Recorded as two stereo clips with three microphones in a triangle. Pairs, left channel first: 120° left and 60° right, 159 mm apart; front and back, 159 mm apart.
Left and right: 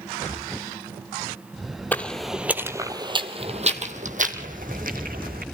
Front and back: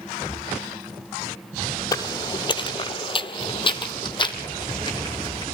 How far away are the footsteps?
About 1.4 m.